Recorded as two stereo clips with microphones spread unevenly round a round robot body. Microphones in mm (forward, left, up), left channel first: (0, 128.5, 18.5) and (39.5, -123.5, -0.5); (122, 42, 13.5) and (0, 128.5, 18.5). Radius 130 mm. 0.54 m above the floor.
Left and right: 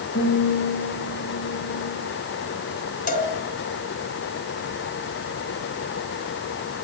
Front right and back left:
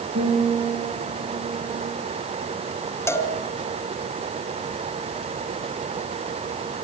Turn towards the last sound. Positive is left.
turn(degrees=40)